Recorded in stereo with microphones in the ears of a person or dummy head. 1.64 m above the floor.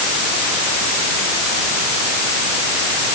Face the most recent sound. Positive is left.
No sound to turn to.